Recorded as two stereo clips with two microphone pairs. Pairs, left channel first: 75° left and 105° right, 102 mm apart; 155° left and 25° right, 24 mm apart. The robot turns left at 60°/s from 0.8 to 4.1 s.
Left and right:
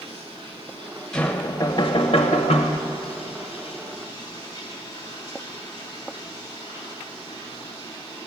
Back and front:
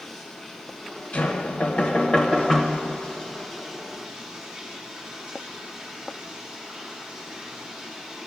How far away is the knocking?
About 1.0 m.